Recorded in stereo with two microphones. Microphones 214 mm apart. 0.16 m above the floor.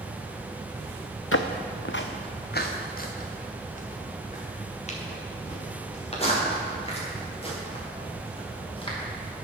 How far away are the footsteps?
About 0.7 m.